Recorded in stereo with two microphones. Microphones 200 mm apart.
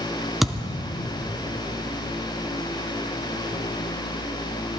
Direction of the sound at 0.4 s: Centre (ahead or behind).